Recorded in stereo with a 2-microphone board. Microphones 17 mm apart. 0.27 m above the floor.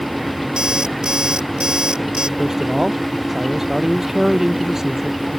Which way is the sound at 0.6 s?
45° right (ahead or behind).